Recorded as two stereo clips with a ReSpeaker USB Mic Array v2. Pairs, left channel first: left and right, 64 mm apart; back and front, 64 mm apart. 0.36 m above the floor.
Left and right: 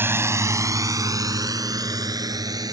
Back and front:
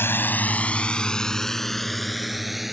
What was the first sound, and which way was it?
A drone, 135° right.